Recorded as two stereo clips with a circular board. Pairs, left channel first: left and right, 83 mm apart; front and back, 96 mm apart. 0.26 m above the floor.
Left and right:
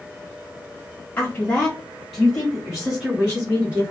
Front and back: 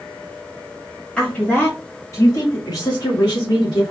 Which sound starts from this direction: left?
A woman speaking, at 1.2 s.